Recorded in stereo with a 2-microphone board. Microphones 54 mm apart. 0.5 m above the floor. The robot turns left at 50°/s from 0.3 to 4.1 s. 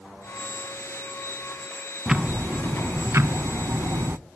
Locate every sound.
2.1 s ticking: 15° right, 0.5 m; by 4.2 s 120° right, 0.5 m